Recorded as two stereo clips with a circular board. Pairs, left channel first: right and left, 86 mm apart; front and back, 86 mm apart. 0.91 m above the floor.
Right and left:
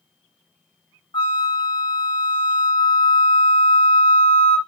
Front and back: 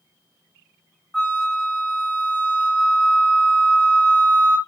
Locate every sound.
1.1 s a flute: 85° right, 0.9 m